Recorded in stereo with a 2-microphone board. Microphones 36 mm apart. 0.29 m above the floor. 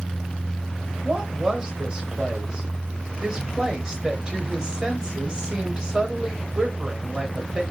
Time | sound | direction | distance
1.0 | a woman speaking | 20° right (ahead or behind) | 1.2 m